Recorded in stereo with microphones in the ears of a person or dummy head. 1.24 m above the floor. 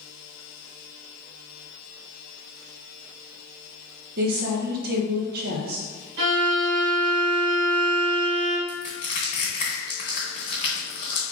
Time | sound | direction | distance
4.2 | a woman speaking | 55° right (ahead or behind) | 1.1 m
6.2 | a violin | 60° right (ahead or behind) | 1.3 m
8.7 | crushing | 25° left (ahead or behind) | 1.1 m